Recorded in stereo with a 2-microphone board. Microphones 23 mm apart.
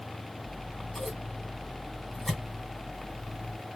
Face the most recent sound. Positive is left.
turn(degrees=5)  # may be behind; listen again after turning